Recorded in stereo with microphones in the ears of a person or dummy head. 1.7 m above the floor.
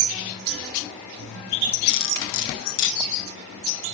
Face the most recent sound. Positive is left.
turn(degrees=75)  # may be behind; listen again after turning